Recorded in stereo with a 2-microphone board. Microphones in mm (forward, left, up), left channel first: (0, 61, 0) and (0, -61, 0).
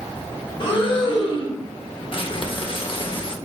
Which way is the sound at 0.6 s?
45° left (ahead or behind).